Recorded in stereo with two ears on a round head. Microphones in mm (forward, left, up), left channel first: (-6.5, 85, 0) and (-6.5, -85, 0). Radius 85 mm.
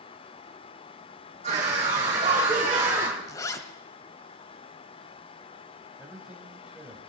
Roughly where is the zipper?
Centre.